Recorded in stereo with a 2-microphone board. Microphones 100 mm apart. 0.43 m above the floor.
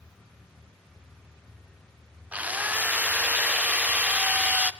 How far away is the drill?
About 0.8 m.